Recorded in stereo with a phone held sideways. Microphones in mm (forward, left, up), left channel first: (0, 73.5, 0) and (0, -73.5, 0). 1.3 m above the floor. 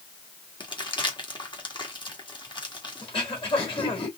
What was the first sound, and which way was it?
Crumpling, 30° left (ahead or behind).